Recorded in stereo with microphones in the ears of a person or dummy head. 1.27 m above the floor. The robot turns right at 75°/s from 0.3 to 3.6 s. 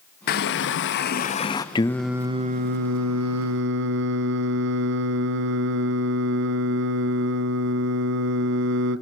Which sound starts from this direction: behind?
Singing, at 1.8 s.